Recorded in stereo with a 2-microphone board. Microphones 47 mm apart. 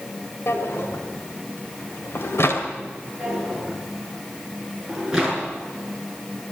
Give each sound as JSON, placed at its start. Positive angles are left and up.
{"t": 0.5, "sound": "a drawer", "side_deg": 70, "distance_m": 1.9}
{"t": 3.2, "sound": "a drawer", "side_deg": -10, "distance_m": 6.0}